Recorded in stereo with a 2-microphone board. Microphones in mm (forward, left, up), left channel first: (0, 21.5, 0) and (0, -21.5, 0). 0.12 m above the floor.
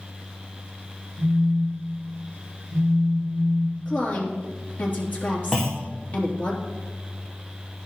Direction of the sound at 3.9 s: 45° left (ahead or behind).